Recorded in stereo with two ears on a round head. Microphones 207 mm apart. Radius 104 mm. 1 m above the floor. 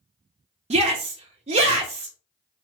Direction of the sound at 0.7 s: 30° right (ahead or behind).